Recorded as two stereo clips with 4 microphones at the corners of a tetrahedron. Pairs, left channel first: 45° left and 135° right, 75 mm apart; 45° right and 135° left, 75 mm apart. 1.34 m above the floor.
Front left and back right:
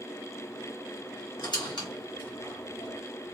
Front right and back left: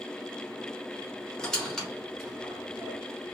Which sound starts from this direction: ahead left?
A squeak, at 1.4 s.